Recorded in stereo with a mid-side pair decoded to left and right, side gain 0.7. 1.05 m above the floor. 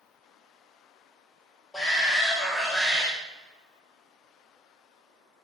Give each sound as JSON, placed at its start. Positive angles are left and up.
{"t": 1.7, "sound": "a shout", "azimuth_deg": 15, "distance_m": 2.0}